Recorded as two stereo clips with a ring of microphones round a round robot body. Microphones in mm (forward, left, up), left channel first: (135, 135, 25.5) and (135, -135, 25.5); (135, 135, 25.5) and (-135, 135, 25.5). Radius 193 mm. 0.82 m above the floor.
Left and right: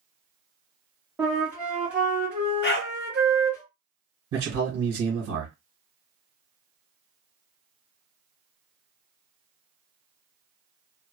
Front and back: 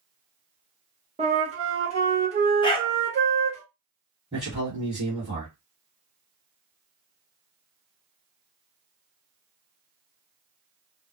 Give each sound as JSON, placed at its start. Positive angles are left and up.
{"t": 1.2, "sound": "a flute", "azimuth_deg": -170, "distance_m": 1.0}
{"t": 2.6, "sound": "a dog barking", "azimuth_deg": 65, "distance_m": 0.5}
{"t": 4.3, "sound": "a man speaking", "azimuth_deg": -95, "distance_m": 1.4}